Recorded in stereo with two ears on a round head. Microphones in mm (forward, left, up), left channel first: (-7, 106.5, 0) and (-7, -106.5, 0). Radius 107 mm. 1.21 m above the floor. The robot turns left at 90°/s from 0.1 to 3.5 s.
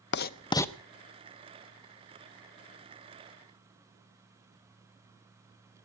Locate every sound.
0.1 s writing: 45° left (ahead or behind), 0.5 m; by 0.7 s centre (ahead or behind), 0.5 m